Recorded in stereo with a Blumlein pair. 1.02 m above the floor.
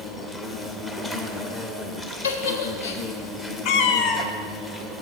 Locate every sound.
0.0 s an insect: 10° left, 0.7 m
2.2 s a giggle: 60° left, 0.7 m
3.6 s a cat meowing: 45° left, 0.5 m